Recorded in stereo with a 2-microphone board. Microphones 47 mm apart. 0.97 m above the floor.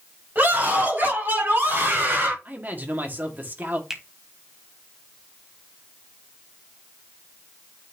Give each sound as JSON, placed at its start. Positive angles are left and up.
{"t": 0.3, "sound": "a scream", "side_deg": -40, "distance_m": 5.0}
{"t": 2.5, "sound": "a man speaking", "side_deg": -40, "distance_m": 1.7}
{"t": 3.9, "sound": "a finger snap", "side_deg": -10, "distance_m": 1.2}